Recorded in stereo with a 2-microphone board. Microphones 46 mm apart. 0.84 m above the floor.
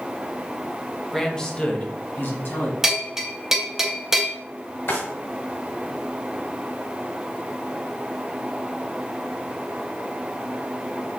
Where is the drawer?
60° left (ahead or behind), 1.9 m.